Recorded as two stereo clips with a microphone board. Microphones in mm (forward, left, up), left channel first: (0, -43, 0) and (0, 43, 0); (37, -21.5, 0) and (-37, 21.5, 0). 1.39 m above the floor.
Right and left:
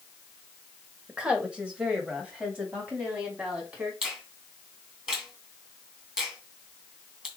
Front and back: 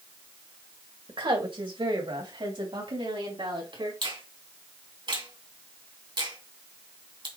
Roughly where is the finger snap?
Behind.